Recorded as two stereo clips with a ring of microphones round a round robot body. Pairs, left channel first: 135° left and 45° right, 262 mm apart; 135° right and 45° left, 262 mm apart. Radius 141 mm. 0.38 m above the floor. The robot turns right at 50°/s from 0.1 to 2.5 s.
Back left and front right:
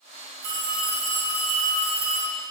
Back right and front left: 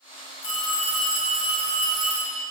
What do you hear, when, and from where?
0.4 s a phone ringing: 65° right, 3 m; by 2.4 s 30° left, 3 m